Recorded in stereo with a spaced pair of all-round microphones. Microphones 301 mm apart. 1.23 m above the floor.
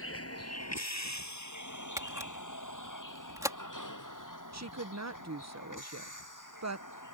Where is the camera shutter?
10° right (ahead or behind).